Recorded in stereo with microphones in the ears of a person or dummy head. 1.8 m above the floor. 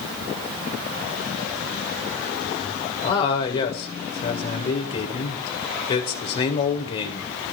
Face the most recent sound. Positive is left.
turn(degrees=40)  # may be behind; listen again after turning